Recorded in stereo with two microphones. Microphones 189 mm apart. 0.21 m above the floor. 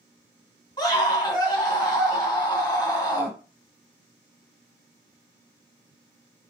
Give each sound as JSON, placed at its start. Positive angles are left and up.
{"t": 0.8, "sound": "a scream", "side_deg": 20, "distance_m": 1.5}